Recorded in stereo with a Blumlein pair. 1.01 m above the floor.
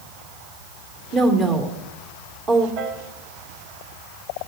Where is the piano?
45° right, 1.4 m.